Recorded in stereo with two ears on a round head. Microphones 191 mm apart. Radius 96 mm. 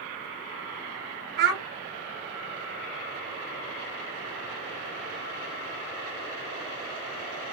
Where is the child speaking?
50° right (ahead or behind), 0.9 m.